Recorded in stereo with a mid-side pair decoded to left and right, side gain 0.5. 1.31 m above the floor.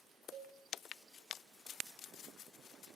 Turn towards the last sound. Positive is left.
turn(degrees=-55)